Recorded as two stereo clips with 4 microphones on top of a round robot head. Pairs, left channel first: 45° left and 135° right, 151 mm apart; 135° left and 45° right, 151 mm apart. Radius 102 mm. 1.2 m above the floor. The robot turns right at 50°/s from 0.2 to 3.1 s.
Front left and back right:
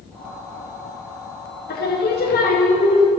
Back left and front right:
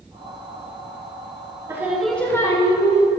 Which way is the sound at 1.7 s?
30° left.